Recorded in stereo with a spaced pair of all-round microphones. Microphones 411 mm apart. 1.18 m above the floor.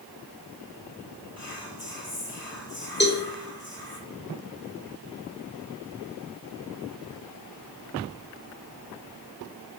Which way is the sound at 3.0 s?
25° left (ahead or behind).